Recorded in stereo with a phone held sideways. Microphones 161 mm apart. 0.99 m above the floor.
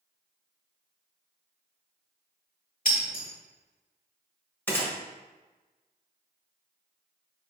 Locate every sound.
2.9 s breaking glass: 55° left (ahead or behind), 1.6 m
4.7 s a gunshot: 10° left (ahead or behind), 0.9 m